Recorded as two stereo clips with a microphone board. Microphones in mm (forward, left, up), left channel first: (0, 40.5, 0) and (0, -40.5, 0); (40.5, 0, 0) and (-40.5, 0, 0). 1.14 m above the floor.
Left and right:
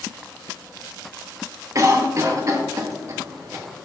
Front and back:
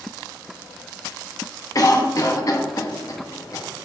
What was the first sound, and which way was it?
A cough, 40° right.